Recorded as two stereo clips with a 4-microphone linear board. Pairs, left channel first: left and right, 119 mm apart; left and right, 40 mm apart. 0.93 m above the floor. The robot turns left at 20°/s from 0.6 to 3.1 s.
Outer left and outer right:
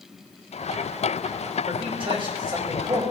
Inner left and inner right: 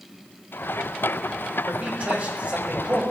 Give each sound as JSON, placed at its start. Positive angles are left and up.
{"t": 1.7, "sound": "a man speaking", "side_deg": -50, "distance_m": 5.5}